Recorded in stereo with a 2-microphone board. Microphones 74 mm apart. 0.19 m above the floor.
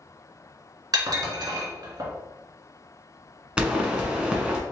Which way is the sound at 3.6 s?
15° right (ahead or behind).